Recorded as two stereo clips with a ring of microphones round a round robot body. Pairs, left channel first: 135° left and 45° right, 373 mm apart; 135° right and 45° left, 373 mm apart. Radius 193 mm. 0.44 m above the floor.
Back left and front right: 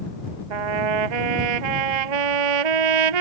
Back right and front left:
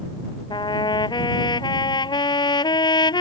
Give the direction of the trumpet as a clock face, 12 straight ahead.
2 o'clock.